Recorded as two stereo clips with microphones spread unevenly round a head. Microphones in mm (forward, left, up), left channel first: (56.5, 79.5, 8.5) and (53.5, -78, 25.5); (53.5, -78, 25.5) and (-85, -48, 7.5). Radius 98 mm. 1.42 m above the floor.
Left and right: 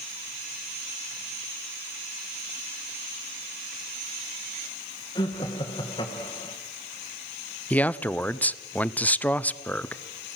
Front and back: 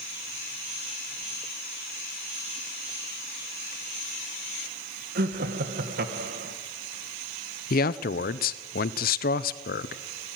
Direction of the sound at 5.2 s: 155° left.